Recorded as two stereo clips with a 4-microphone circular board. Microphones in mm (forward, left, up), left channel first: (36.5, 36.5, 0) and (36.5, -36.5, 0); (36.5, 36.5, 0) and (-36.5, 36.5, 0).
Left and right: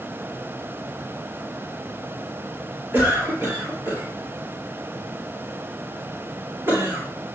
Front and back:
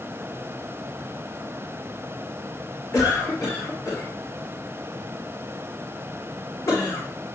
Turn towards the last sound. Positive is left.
turn(degrees=-30)